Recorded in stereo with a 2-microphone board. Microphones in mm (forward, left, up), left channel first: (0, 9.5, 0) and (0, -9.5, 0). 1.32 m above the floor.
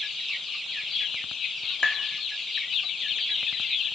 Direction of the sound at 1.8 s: 45° left (ahead or behind).